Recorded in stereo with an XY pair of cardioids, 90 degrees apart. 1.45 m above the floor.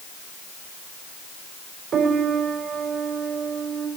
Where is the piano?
60° right, 3.5 m.